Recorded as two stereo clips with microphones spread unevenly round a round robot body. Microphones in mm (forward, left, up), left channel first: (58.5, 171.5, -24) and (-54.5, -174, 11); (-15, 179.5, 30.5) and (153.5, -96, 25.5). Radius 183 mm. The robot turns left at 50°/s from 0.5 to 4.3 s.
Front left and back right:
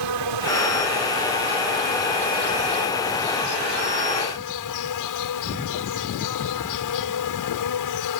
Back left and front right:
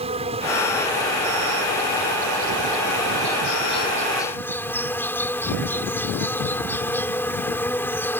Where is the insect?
130° right; by 8.2 s 40° left.